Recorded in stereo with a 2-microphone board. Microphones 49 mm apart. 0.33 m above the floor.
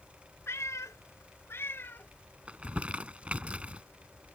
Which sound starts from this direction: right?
Crumpling, at 2.5 s.